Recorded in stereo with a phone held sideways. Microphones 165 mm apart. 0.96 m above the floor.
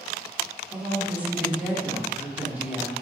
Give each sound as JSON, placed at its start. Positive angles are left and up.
{"t": 0.7, "sound": "a woman speaking", "side_deg": -10, "distance_m": 2.5}